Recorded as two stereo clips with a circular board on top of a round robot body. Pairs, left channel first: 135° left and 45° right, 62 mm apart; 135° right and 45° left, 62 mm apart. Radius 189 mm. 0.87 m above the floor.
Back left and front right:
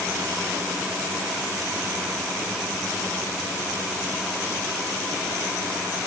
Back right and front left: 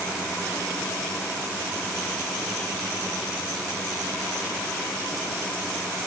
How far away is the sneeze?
No sneeze in this recording.